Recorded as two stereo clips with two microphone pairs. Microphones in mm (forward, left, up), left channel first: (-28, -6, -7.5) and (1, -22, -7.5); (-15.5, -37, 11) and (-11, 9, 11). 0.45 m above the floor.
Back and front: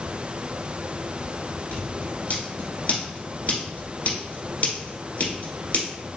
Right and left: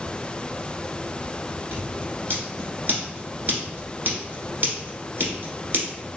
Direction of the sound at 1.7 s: 125° left.